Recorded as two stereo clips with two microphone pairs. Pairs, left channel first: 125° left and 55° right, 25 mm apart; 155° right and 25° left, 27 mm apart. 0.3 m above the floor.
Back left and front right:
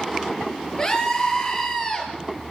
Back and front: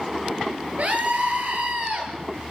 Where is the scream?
60° left, 6.5 m.